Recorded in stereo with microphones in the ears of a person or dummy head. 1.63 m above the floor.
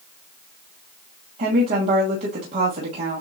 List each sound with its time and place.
1.4 s a woman speaking: 40° right (ahead or behind), 1.5 m